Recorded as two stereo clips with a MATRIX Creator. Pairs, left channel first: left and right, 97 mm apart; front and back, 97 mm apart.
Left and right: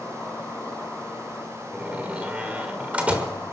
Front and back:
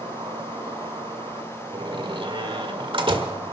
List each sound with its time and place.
0.0 s an insect: 170° left, 4.5 m
1.7 s a door slam: 165° right, 1.4 m